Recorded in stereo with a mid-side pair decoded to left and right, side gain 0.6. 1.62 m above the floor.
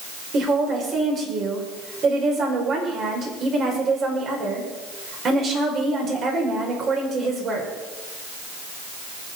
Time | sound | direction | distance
0.3 | a woman speaking | 45° right | 5.5 m